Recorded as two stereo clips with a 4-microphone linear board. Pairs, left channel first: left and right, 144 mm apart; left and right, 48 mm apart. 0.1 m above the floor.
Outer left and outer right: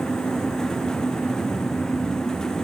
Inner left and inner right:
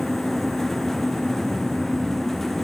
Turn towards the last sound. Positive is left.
No sound to turn to.